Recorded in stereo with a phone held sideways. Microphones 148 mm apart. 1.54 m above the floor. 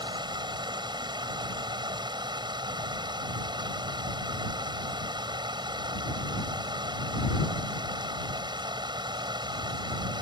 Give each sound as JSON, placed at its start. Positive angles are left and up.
{"t": 0.0, "sound": "running water", "side_deg": -30}